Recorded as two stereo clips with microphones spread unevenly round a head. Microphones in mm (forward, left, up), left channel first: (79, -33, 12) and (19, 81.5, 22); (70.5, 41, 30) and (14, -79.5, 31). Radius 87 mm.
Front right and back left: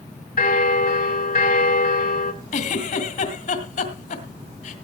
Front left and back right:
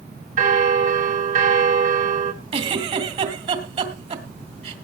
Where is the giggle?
90° right, 2 m.